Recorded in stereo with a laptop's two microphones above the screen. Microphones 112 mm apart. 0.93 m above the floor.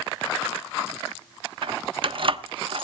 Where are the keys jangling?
55° right (ahead or behind), 0.9 m.